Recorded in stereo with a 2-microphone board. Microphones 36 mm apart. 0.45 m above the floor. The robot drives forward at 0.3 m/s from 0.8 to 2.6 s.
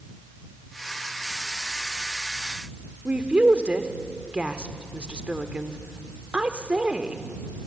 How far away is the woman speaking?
About 1.3 m.